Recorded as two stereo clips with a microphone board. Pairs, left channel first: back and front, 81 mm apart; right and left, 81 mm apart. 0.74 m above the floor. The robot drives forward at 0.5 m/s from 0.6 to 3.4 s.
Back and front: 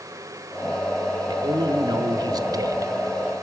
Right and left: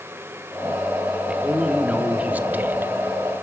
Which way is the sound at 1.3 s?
15° left.